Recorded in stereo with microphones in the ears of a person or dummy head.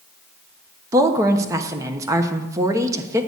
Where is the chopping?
I don't hear chopping.